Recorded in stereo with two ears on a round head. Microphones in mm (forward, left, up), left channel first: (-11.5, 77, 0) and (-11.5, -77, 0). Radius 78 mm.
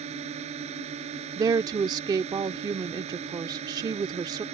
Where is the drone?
40° right (ahead or behind).